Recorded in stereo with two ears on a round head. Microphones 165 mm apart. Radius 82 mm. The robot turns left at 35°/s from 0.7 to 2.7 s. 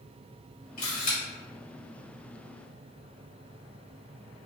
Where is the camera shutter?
45° left (ahead or behind), 1.7 m.